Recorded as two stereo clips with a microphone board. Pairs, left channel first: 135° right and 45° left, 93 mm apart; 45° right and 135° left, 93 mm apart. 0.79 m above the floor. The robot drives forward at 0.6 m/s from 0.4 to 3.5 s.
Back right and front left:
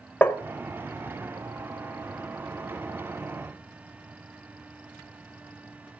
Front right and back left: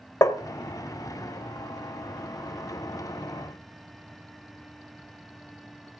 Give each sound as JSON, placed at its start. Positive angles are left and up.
{"t": 0.2, "sound": "tapping", "azimuth_deg": -70, "distance_m": 0.6}